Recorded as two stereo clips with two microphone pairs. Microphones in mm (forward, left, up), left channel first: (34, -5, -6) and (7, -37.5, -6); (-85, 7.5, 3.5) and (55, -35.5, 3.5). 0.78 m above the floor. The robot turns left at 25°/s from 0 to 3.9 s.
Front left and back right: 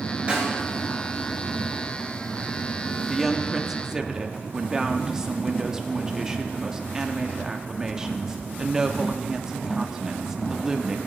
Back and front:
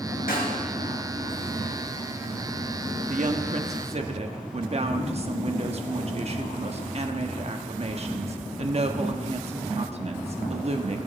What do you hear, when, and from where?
0.3 s a snare drum: 170° left, 3 m; by 0.6 s 165° left, 3 m
3.1 s a woman speaking: 35° right, 1.2 m; by 11.0 s 55° right, 1.2 m